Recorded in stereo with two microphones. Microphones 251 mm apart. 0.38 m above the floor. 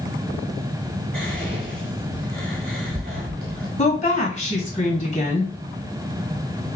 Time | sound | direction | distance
1.1 | whispering | 40° right (ahead or behind) | 1.1 m
3.8 | a woman speaking | 30° left (ahead or behind) | 2 m